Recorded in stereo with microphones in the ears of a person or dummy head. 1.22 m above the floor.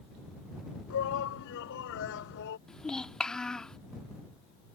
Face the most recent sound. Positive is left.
turn(degrees=5)  # may be behind; listen again after turning